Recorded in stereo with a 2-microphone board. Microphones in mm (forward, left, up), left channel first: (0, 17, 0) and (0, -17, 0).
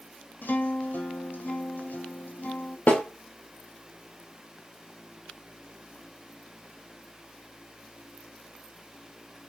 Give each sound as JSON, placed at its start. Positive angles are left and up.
{"t": 0.4, "sound": "a guitar", "side_deg": 75, "distance_m": 0.9}
{"t": 2.9, "sound": "a snare drum", "side_deg": 55, "distance_m": 1.0}